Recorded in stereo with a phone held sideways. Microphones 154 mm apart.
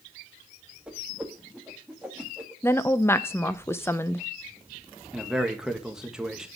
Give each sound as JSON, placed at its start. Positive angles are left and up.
{"t": 0.9, "sound": "a whoosh", "side_deg": -5, "distance_m": 2.0}
{"t": 2.6, "sound": "a woman speaking", "side_deg": 15, "distance_m": 0.7}
{"t": 5.1, "sound": "a man speaking", "side_deg": -5, "distance_m": 1.7}